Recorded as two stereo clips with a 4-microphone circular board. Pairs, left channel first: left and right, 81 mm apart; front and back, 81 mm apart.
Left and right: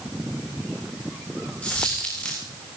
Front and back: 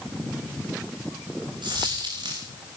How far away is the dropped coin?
About 6 m.